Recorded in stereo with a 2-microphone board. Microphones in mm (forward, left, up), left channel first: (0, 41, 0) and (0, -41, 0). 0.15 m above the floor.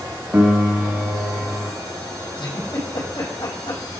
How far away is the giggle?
About 5.5 m.